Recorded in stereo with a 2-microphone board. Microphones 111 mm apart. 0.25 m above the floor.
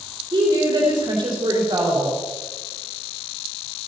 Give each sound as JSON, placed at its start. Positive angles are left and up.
{"t": 0.3, "sound": "a woman speaking", "side_deg": -45, "distance_m": 3.5}